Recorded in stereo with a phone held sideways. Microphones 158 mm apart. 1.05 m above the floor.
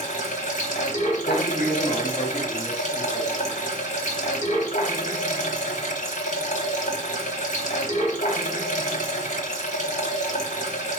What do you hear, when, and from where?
0.0 s running water: 50° left (ahead or behind), 1.1 m
1.2 s a man speaking: 5° right (ahead or behind), 1.6 m